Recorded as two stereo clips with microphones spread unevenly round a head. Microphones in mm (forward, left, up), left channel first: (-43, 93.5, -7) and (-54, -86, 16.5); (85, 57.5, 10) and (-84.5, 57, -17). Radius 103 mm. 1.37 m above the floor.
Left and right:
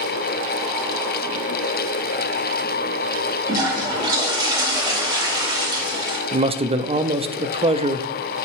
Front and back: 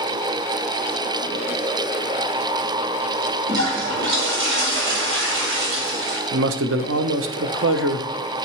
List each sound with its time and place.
3.5 s a toilet flushing: 160° right, 3 m
6.3 s a man speaking: 150° right, 0.5 m